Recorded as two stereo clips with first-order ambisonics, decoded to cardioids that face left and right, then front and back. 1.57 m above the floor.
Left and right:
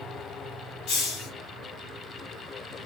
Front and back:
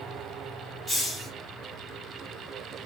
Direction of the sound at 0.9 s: 85° left.